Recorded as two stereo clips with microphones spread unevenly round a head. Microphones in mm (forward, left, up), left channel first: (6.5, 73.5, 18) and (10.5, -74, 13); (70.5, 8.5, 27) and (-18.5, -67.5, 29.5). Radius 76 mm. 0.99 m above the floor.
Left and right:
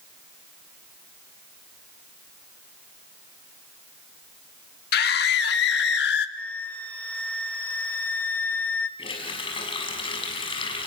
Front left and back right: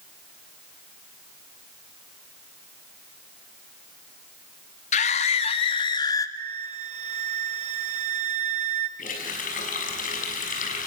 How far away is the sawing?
I don't hear sawing.